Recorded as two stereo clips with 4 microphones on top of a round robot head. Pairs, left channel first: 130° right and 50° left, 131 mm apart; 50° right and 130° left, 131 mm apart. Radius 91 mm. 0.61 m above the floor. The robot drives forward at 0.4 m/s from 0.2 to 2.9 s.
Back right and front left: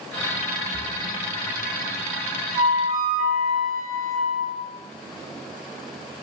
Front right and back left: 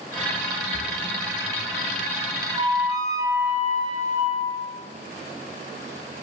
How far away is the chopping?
No chopping in this recording.